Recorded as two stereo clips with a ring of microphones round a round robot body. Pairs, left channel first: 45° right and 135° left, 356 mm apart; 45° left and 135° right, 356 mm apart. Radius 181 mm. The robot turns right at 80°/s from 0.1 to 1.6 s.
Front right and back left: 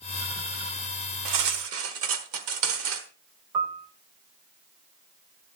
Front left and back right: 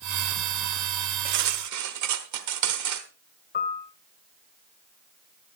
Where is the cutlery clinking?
160° left, 1.2 m; by 3.1 s 175° right, 1.2 m.